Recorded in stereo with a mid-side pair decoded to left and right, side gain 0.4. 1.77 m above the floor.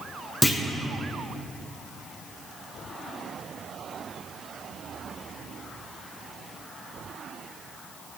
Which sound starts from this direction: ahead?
A clunk, at 0.4 s.